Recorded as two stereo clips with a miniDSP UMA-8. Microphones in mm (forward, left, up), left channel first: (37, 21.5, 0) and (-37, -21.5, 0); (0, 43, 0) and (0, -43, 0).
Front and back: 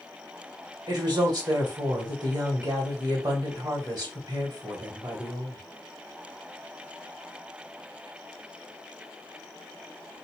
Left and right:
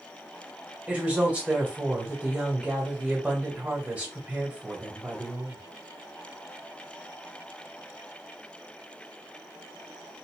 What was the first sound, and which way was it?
A woman speaking, 160° right.